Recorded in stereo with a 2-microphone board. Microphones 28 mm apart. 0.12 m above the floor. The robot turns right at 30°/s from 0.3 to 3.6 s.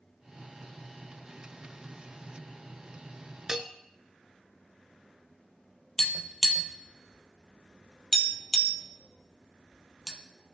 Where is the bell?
20° right (ahead or behind), 0.5 m.